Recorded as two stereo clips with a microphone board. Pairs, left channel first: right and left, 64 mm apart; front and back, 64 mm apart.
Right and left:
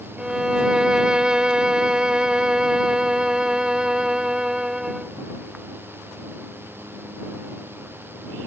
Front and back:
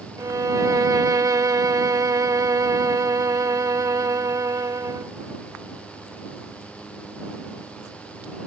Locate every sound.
0.2 s a violin: 170° left